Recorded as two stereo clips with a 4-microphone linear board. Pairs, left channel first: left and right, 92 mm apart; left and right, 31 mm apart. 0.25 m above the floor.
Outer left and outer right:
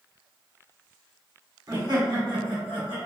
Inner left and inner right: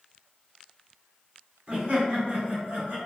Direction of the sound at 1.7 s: 40° right (ahead or behind).